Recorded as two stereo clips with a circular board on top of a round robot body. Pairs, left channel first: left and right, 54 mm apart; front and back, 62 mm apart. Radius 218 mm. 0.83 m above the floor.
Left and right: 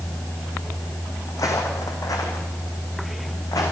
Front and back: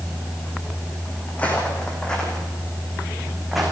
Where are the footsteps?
70° left, 3 m; by 3.7 s 95° left, 3.5 m.